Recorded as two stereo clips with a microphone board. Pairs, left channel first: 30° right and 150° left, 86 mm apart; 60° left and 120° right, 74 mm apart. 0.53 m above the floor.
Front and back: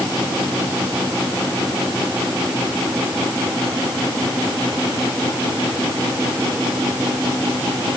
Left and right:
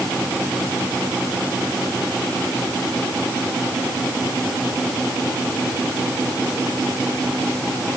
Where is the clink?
I don't hear a clink.